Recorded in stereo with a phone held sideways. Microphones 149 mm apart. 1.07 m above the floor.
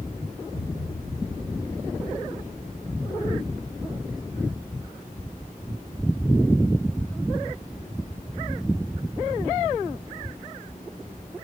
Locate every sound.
0.5 s a thud: 30° left (ahead or behind), 5.5 m